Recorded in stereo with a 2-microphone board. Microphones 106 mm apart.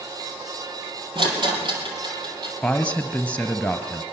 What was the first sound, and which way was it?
A rattle, 50° right (ahead or behind).